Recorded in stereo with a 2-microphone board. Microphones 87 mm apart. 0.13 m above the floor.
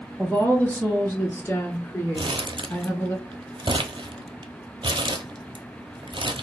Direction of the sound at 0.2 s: 15° left (ahead or behind).